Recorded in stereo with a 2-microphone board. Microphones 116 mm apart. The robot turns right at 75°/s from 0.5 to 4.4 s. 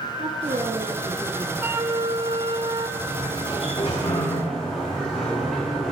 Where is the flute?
155° right, 1.2 m; by 2.9 s 60° right, 1.2 m.